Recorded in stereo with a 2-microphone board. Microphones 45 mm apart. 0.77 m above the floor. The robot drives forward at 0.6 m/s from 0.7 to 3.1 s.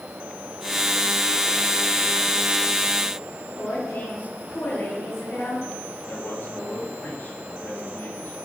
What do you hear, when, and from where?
3.6 s a woman speaking: 50° left (ahead or behind), 8.5 m
6.1 s a man speaking: 45° left (ahead or behind), 6.5 m